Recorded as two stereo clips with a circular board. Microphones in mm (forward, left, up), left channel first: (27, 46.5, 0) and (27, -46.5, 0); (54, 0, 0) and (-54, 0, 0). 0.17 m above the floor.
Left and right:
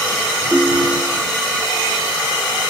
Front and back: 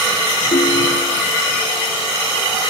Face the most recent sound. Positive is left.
turn(degrees=5)